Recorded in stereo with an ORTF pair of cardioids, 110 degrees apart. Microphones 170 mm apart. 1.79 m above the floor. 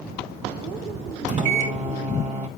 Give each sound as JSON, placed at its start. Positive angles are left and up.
{"t": 1.3, "sound": "a microwave", "azimuth_deg": -45, "distance_m": 2.5}